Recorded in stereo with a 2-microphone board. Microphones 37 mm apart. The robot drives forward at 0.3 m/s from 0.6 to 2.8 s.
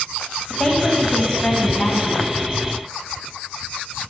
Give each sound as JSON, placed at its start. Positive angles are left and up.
{"t": 0.5, "sound": "a woman speaking", "side_deg": 25, "distance_m": 1.0}